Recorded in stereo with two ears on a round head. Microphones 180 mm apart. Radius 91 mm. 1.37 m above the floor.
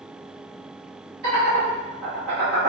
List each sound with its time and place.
1.2 s laughter: 55° right (ahead or behind), 1.1 m